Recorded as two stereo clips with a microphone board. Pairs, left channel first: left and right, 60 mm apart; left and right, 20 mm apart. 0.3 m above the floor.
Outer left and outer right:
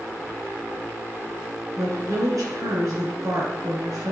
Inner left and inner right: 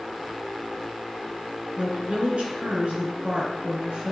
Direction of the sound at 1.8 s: 70° right (ahead or behind).